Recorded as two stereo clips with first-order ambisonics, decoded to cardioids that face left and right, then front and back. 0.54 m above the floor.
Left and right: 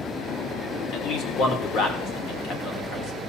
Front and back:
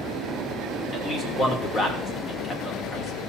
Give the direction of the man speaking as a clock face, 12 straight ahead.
10 o'clock.